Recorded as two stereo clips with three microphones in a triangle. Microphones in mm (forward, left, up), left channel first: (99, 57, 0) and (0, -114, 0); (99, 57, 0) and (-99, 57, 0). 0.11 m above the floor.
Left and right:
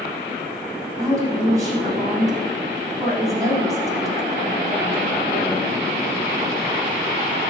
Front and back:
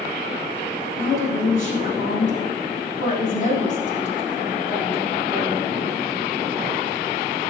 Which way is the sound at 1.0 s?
45° right.